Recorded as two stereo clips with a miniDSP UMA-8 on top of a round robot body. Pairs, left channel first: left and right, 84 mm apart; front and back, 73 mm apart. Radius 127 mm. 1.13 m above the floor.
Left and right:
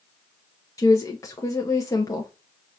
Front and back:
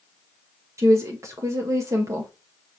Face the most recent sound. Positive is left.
turn(degrees=140)